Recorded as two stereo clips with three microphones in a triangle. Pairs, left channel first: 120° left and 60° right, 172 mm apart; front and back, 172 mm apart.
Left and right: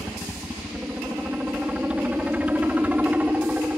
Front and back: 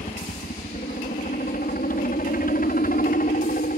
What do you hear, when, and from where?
0.0 s a helicopter: 25° left; by 3.8 s 20° left